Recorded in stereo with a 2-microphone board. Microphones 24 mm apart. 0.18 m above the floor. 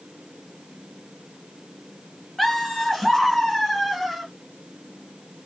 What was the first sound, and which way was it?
Laughter, 5° left (ahead or behind).